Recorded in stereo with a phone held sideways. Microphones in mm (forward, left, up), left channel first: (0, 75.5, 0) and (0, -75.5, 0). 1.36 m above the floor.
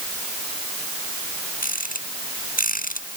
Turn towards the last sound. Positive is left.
turn(degrees=70)  # may be behind; listen again after turning